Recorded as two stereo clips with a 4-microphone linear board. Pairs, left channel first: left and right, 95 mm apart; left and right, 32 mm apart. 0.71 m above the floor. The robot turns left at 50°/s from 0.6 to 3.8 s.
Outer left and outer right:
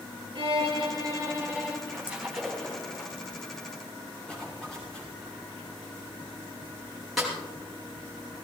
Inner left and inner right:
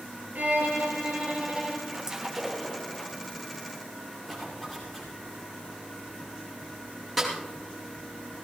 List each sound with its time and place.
0.3 s a violin: 115° right, 4 m; by 1.8 s 175° right, 4 m
1.9 s a splash: 155° right, 3 m; by 3.1 s 145° left, 3 m
4.3 s a zipper: 10° left (ahead or behind), 6.5 m
7.2 s a snare drum: centre (ahead or behind), 5.5 m